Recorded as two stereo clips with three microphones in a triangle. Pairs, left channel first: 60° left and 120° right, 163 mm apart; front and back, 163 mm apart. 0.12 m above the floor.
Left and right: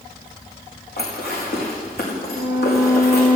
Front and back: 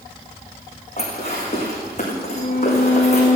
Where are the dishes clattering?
50° left, 5.5 m.